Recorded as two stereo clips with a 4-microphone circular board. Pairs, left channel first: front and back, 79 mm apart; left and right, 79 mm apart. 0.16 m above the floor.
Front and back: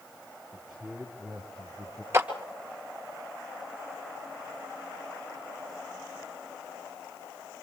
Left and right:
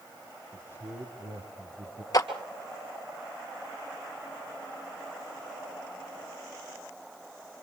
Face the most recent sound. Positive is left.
turn(degrees=125)